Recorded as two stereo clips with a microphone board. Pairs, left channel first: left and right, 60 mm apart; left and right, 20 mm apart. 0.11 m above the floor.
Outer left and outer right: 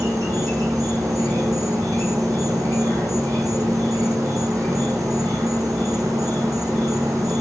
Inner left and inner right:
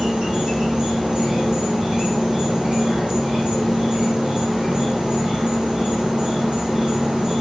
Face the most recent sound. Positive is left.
turn(degrees=-70)  # may be behind; listen again after turning